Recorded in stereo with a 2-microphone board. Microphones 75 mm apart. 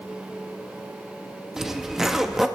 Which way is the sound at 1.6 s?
5° right (ahead or behind).